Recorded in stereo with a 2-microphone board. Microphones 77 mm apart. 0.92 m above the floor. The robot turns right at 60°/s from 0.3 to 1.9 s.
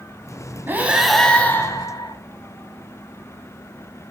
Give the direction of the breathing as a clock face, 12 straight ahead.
1 o'clock.